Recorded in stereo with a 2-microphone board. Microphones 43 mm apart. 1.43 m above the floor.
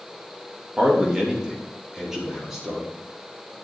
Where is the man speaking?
20° right (ahead or behind), 3 m; by 2.9 s 10° right (ahead or behind), 4.5 m.